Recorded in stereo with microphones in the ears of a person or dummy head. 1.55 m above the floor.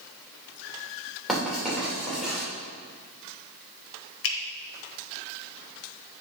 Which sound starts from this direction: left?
A finger snap, at 4.2 s.